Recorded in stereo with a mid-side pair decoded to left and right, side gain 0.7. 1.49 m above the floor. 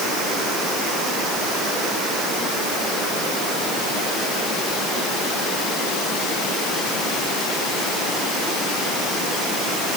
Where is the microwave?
I don't hear a microwave.